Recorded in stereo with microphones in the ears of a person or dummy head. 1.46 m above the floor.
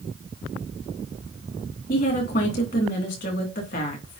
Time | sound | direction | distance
1.9 | a woman speaking | 40° left (ahead or behind) | 2.5 m